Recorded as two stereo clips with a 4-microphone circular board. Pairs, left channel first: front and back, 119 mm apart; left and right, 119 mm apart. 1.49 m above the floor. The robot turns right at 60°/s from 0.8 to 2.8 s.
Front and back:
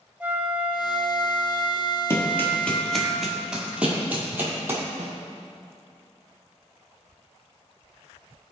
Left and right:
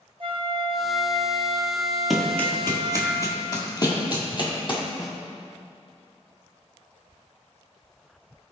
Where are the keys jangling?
No keys jangling in this recording.